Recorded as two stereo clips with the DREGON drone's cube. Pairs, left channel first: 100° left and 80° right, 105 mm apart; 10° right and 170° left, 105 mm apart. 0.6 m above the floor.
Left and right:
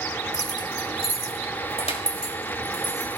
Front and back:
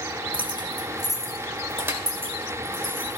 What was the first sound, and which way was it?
Keys jangling, 150° left.